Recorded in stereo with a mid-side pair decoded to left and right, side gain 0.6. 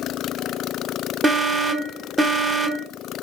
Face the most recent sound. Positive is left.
turn(degrees=-20)